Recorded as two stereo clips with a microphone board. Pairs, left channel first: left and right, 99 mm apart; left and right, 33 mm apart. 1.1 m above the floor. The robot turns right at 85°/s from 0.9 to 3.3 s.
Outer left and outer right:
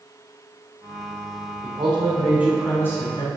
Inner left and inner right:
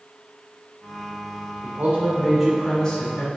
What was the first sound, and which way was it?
A man speaking, 80° right.